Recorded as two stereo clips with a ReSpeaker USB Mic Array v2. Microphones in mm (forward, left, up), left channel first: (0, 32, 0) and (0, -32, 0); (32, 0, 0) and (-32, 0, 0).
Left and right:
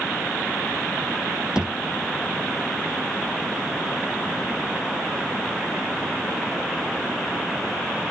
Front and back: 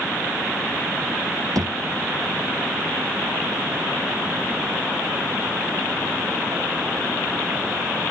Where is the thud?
170° right.